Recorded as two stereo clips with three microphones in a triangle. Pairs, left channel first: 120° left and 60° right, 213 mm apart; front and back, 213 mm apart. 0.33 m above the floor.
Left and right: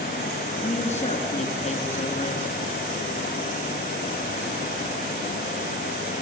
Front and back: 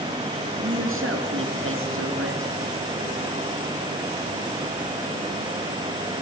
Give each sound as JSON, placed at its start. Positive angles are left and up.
{"t": 0.6, "sound": "a woman speaking", "azimuth_deg": 180, "distance_m": 4.0}